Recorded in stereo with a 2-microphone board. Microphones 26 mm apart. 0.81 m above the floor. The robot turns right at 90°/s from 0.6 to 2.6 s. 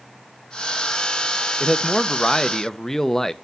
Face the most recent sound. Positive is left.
turn(degrees=20)  # may be behind; listen again after turning